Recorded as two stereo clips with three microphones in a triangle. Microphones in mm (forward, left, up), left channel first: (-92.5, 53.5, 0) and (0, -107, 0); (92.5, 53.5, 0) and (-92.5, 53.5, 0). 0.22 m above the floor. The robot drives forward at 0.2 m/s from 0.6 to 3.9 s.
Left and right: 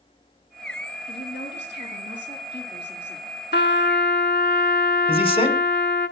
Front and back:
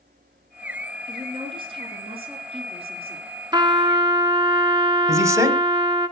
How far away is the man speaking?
About 1.6 m.